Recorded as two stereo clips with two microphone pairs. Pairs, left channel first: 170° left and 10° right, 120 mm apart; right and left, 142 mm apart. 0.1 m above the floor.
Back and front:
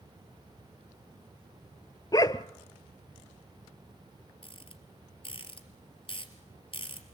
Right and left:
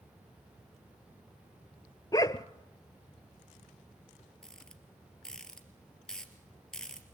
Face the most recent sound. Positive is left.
turn(degrees=-175)